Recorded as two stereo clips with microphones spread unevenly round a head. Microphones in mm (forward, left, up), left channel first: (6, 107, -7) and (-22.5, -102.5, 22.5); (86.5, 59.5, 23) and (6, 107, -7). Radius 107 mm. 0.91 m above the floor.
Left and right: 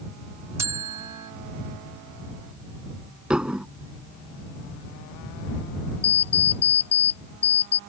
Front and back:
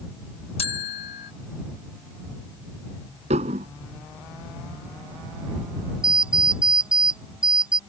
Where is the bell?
20° right.